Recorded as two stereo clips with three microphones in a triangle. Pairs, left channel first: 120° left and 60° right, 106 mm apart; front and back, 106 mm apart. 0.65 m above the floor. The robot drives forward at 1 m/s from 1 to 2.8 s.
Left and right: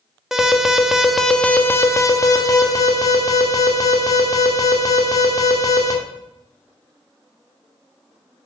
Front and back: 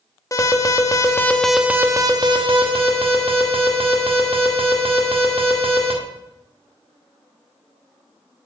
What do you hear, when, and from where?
0.3 s an alarm: 25° left, 0.9 m; by 5.9 s 170° left, 1.5 m